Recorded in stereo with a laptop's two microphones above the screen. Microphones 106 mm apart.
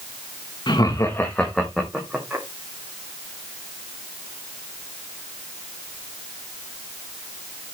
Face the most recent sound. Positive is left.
turn(degrees=-10)  # may be behind; listen again after turning